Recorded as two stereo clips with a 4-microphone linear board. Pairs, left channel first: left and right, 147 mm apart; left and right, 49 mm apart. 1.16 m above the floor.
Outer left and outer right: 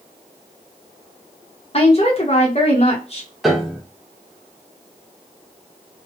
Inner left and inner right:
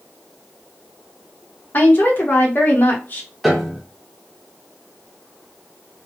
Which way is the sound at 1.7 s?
45° left (ahead or behind).